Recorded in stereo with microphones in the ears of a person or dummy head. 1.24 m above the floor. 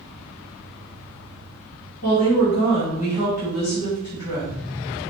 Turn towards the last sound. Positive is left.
turn(degrees=80)